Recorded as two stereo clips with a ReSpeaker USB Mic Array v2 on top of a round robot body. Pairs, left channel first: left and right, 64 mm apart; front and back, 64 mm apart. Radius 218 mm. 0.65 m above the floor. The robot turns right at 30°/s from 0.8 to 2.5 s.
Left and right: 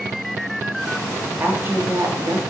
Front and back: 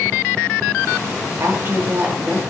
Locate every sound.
1.4 s a woman speaking: 145° right, 1.9 m; by 2.4 s 115° right, 1.9 m